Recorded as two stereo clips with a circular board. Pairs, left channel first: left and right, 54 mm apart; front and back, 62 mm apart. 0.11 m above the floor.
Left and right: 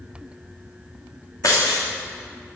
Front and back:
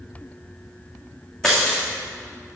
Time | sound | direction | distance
1.4 | breaking glass | 80° left | 3.5 m